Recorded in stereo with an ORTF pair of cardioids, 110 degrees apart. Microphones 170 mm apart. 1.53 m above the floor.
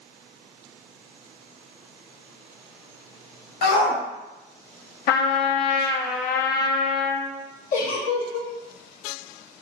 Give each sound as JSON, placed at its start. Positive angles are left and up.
{"t": 3.6, "sound": "a shout", "azimuth_deg": 70, "distance_m": 1.5}
{"t": 5.1, "sound": "a trumpet", "azimuth_deg": 65, "distance_m": 0.5}
{"t": 7.7, "sound": "a giggle", "azimuth_deg": 55, "distance_m": 0.8}